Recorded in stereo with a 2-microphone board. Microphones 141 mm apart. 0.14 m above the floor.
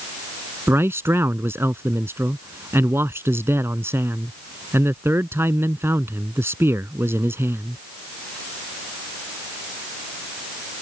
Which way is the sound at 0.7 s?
20° right (ahead or behind).